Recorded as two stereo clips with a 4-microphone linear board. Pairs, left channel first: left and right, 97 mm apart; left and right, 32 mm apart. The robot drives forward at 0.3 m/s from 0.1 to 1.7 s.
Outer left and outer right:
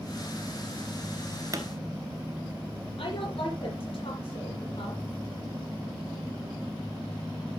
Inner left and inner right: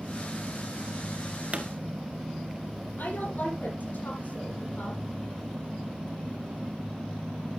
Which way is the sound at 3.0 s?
80° left.